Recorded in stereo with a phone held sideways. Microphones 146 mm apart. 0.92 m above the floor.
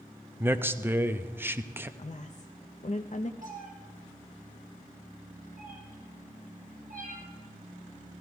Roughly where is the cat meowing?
Right.